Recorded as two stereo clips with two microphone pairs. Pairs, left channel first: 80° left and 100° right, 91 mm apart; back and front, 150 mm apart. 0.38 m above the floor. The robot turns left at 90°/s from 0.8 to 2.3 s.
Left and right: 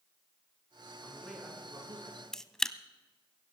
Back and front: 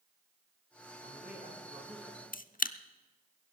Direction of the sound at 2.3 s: 165° left.